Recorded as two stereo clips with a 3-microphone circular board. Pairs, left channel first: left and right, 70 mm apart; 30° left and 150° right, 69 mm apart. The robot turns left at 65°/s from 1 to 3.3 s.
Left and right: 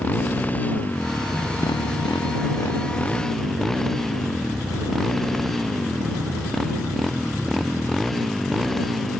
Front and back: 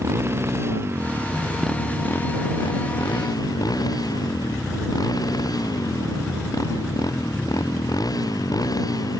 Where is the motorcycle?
160° left; by 9.2 s 5° left.